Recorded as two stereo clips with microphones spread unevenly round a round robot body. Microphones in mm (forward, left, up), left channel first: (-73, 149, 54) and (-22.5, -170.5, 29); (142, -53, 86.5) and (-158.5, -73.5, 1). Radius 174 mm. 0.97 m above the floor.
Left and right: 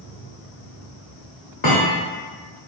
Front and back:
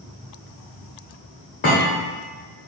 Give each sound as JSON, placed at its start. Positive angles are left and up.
{"t": 1.6, "sound": "a thud", "azimuth_deg": 45, "distance_m": 0.9}